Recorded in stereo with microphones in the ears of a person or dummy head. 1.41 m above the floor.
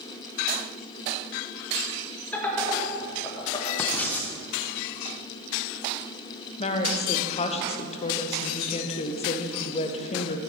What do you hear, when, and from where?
2.3 s laughter: 10° left (ahead or behind), 2.5 m; by 3.7 s 25° left (ahead or behind), 1.7 m
3.8 s writing: 5° left (ahead or behind), 0.8 m
6.6 s a woman speaking: 30° left (ahead or behind), 0.6 m